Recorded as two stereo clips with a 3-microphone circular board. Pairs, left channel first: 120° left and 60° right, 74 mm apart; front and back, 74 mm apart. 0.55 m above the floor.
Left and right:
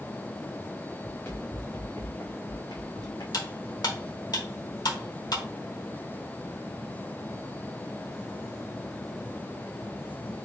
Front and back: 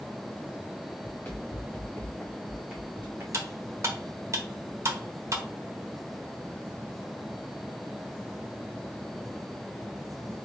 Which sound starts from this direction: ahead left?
Running footsteps, at 1.0 s.